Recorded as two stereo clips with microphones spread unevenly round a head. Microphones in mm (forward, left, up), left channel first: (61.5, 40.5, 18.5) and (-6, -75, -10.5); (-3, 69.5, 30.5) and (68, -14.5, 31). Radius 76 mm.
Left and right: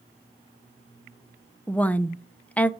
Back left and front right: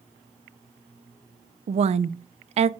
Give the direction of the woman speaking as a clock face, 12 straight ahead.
1 o'clock.